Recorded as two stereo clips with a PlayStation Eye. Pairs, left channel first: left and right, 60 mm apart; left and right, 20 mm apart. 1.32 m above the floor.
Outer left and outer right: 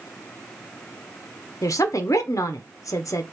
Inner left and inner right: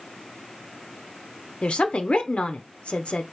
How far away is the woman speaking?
About 0.8 m.